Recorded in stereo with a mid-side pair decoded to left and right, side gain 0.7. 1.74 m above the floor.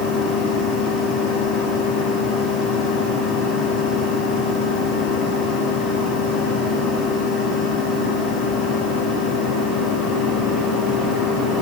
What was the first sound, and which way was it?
A machine running, 50° left.